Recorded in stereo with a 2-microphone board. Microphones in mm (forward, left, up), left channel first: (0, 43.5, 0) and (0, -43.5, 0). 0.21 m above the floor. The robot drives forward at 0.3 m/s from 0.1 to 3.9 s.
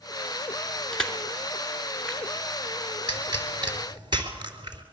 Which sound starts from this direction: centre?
Crushing, at 0.9 s.